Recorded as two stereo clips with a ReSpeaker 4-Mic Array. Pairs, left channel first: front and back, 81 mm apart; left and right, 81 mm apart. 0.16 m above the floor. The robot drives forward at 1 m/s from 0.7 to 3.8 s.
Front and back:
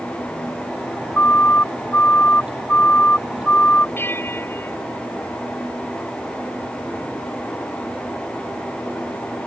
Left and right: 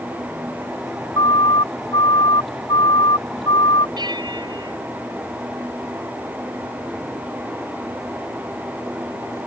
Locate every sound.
1.2 s a siren: 65° left; by 3.9 s 70° left
4.0 s a bell: 65° right